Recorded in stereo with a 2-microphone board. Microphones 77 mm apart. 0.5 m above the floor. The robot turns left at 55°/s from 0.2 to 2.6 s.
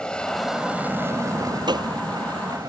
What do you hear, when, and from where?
0.0 s an aircraft: 15° left; by 2.7 s 120° right
1.7 s a gunshot: 70° right (ahead or behind); by 1.9 s 60° right (ahead or behind)